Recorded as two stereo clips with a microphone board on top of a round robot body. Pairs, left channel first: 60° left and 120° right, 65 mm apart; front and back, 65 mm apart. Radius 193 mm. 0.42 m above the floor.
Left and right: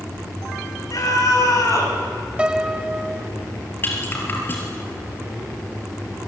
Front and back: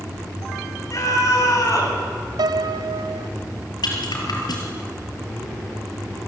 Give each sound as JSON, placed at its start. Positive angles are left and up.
{"t": 0.9, "sound": "a scream", "azimuth_deg": 35, "distance_m": 6.0}
{"t": 2.4, "sound": "a piano", "azimuth_deg": 165, "distance_m": 0.6}
{"t": 3.8, "sound": "a rattle", "azimuth_deg": 0, "distance_m": 4.0}